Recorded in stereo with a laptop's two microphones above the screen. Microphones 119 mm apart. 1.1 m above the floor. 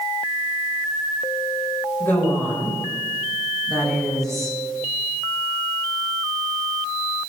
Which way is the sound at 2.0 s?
15° left (ahead or behind).